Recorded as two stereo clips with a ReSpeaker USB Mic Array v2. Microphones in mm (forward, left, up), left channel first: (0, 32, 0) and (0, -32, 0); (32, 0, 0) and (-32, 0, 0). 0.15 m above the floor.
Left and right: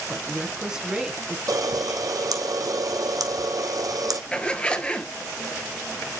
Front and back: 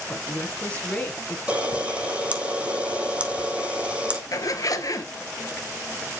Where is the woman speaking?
30° right, 1.1 m.